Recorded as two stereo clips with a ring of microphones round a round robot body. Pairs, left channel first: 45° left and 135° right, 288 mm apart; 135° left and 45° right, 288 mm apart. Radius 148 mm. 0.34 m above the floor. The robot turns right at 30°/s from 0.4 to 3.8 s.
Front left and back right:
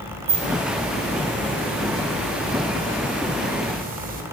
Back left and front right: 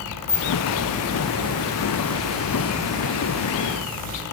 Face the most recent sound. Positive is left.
turn(degrees=-90)